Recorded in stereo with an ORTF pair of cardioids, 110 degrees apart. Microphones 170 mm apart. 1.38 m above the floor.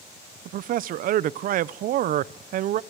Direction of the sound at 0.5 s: 55° right.